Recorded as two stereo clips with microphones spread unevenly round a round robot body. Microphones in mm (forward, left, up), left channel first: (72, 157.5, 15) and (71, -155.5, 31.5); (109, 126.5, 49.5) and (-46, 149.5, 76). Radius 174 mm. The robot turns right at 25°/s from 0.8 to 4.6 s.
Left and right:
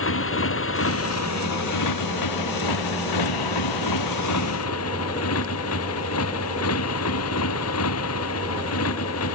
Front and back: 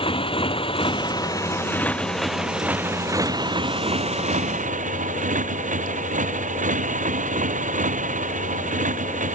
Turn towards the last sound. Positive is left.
turn(degrees=140)